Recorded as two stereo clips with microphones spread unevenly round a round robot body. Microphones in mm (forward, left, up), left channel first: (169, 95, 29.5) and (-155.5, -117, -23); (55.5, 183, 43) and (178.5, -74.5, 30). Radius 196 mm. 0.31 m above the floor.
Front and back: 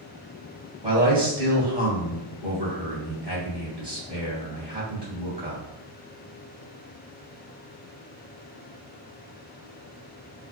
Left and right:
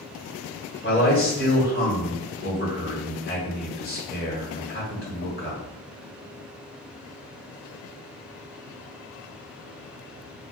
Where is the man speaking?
155° left, 1.7 m.